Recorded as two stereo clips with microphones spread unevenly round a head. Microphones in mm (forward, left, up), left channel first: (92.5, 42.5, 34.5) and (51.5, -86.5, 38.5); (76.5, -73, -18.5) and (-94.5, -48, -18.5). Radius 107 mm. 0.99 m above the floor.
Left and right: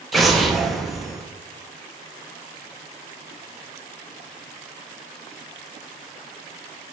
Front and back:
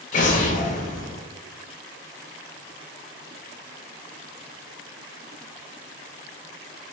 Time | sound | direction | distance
0.1 | an explosion | 15° right | 0.6 m